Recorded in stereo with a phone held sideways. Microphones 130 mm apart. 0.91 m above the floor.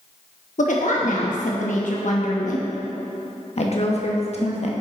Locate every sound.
0.6 s a woman speaking: 75° left (ahead or behind), 0.9 m
3.6 s a woman speaking: 55° left (ahead or behind), 1.3 m